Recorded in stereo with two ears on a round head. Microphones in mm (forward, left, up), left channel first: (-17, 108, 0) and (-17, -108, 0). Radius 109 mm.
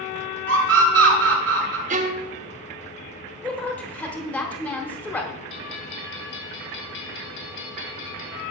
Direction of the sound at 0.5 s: 55° right (ahead or behind).